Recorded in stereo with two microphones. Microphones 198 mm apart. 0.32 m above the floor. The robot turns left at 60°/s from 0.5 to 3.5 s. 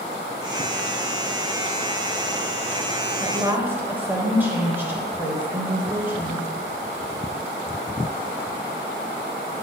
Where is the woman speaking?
20° right (ahead or behind), 1.4 m; by 6.5 s 10° right (ahead or behind), 1.4 m.